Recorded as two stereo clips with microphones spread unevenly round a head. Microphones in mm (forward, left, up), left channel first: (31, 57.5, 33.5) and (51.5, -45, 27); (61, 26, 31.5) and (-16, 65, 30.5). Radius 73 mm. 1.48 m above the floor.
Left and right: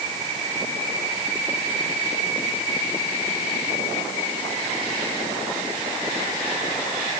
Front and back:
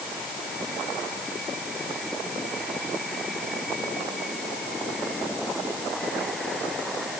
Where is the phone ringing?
I don't hear a phone ringing.